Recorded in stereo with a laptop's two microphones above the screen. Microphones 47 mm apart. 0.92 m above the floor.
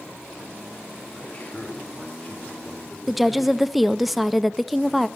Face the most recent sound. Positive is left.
turn(degrees=0)  # may be behind; listen again after turning